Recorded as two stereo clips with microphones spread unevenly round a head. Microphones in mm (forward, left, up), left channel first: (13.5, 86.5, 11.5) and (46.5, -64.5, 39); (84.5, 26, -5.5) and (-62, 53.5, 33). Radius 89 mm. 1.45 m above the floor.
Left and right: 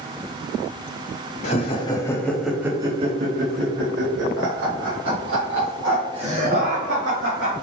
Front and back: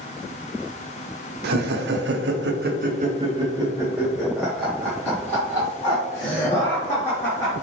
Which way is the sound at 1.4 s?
160° left.